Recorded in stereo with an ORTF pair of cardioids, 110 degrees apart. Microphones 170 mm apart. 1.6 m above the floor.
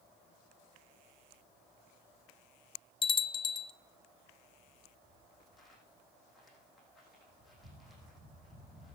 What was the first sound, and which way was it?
A bell, 30° left.